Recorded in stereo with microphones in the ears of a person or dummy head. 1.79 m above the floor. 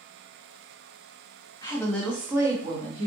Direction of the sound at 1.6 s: 20° left (ahead or behind).